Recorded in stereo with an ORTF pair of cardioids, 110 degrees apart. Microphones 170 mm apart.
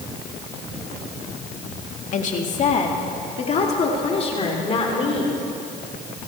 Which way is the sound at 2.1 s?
50° left.